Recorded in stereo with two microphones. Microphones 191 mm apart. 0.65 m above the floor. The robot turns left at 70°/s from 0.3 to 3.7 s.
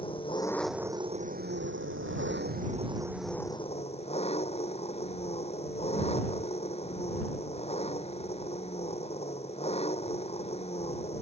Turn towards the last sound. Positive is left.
turn(degrees=150)